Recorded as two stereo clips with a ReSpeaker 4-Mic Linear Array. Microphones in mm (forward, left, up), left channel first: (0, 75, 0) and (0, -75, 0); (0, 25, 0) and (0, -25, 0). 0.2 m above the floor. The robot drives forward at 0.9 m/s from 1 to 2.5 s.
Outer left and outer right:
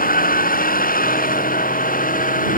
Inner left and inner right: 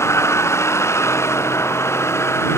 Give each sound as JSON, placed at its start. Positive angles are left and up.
{"t": 0.0, "sound": "a vehicle", "side_deg": 65}